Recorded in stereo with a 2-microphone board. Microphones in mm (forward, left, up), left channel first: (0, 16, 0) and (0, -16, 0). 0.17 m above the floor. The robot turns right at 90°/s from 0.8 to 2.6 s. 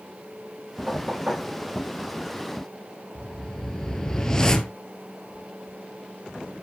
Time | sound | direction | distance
0.9 | knocking | 15° right (ahead or behind) | 6 m
3.1 | a whoosh | 20° left (ahead or behind) | 0.8 m